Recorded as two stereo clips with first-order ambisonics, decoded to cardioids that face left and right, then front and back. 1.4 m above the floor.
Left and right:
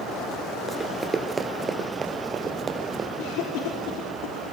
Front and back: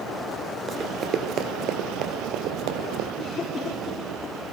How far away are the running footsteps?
About 1.4 m.